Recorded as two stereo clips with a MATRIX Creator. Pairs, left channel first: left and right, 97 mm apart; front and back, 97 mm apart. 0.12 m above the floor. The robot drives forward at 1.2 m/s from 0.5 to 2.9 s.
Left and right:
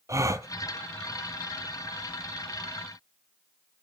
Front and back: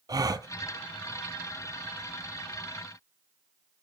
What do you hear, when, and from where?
0.1 s a gasp: 140° right, 0.6 m